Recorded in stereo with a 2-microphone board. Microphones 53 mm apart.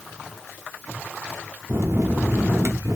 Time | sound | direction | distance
1.7 | a bell | 75° right (ahead or behind) | 1.2 m